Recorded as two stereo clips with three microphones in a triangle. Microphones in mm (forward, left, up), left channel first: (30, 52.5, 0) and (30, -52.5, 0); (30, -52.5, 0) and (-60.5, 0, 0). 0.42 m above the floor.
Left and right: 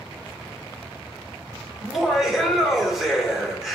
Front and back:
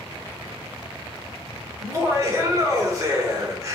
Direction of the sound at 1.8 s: 175° right.